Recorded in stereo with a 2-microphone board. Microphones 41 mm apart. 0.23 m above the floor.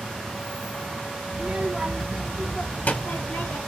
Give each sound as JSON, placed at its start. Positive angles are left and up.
{"t": 1.3, "sound": "a child speaking", "side_deg": -35, "distance_m": 0.9}